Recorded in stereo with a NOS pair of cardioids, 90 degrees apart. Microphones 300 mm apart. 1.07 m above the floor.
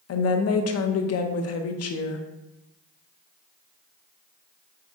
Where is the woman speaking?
55° left, 0.7 m.